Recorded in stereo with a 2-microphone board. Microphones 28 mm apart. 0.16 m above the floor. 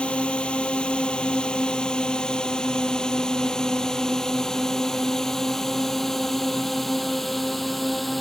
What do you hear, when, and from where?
0.0 s a drone: 45° left (ahead or behind); by 8.2 s 5° left (ahead or behind)